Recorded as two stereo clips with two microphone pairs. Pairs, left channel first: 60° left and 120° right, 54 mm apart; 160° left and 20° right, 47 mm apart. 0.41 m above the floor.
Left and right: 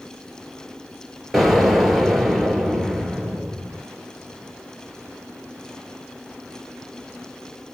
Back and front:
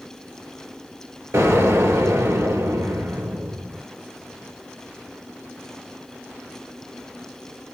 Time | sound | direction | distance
1.3 | an explosion | 35° right | 1.5 m